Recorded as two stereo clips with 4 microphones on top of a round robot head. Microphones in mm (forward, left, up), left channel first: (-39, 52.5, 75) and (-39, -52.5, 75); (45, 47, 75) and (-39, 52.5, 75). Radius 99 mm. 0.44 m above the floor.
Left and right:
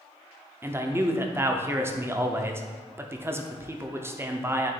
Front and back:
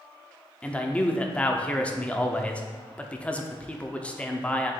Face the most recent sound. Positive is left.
turn(degrees=-60)